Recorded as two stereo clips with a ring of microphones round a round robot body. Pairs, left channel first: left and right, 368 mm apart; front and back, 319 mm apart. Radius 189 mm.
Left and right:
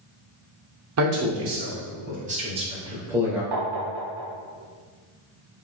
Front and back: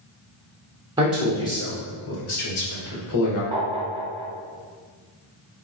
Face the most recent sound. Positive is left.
turn(degrees=-110)